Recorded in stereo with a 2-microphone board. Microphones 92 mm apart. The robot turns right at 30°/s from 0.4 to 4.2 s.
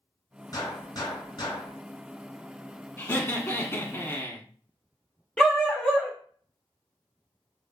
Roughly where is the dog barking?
Centre.